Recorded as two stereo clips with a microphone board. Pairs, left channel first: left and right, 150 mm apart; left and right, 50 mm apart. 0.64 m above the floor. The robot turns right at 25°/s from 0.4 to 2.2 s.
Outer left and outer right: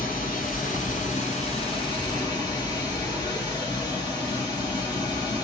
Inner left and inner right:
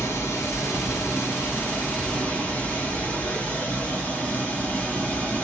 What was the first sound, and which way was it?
Running water, 105° left.